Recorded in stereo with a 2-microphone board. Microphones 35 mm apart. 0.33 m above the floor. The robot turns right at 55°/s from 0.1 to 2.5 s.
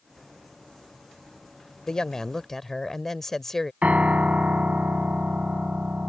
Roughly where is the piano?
Right.